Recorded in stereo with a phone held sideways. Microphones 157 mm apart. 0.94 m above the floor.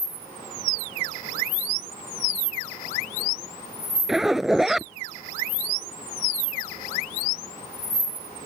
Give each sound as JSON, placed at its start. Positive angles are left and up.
{"t": 4.1, "sound": "a zipper", "side_deg": -5}